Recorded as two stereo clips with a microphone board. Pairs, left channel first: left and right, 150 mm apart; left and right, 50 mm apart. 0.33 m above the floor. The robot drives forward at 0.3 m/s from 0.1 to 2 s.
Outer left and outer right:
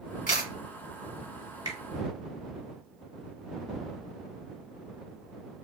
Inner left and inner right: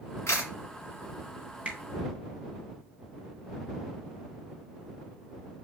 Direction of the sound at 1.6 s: 20° right (ahead or behind).